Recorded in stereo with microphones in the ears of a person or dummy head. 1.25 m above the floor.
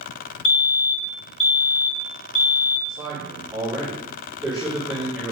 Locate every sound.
0.5 s a fire alarm: 35° left (ahead or behind), 1.0 m
2.9 s a man speaking: 5° right (ahead or behind), 3 m